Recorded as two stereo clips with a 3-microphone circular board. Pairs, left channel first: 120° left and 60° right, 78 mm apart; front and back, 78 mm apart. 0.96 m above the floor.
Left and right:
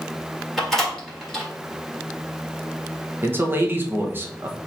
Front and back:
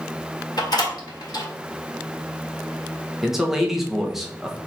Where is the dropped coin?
No dropped coin in this recording.